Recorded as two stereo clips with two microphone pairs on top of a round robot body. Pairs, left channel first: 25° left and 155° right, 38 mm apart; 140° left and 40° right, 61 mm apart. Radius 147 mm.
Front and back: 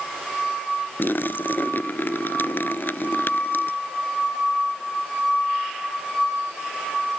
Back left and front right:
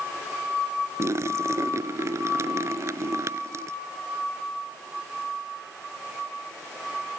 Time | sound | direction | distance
1.0 | a splash | 5° left | ?